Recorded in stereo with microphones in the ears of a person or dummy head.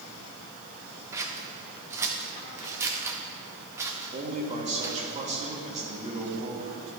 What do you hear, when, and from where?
1.1 s scissors: 10° right (ahead or behind), 0.6 m
4.1 s a man speaking: 30° right (ahead or behind), 1.8 m